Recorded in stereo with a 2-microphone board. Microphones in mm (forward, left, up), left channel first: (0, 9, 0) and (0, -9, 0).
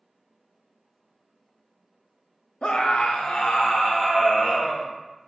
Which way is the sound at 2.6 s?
65° left (ahead or behind).